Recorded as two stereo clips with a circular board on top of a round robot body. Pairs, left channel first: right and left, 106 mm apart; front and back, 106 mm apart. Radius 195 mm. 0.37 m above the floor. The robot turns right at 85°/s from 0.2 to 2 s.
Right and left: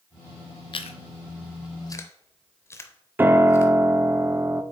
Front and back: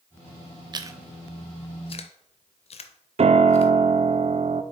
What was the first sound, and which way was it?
Chewing, 130° right.